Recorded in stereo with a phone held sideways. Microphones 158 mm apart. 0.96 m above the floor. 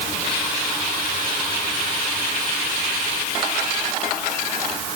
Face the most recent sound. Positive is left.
No sound to turn to.